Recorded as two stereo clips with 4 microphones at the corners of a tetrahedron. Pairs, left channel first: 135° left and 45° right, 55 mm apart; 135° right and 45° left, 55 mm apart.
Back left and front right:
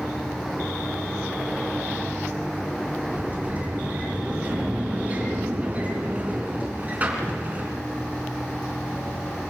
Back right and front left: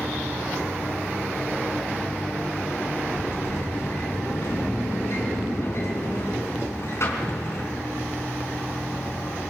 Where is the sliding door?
105° right, 3.5 m.